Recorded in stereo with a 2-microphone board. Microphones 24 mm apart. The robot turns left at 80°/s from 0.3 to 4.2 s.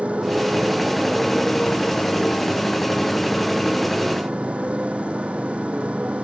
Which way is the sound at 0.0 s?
115° right.